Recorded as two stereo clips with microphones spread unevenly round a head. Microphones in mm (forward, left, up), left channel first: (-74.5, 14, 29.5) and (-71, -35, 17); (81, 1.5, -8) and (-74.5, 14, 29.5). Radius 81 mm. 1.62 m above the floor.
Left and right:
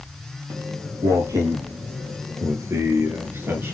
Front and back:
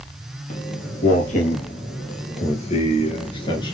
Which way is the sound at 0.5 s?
55° right.